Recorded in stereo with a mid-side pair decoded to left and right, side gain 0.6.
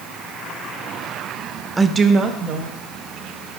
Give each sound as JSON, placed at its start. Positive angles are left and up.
{"t": 1.8, "sound": "a woman speaking", "azimuth_deg": -15, "distance_m": 0.6}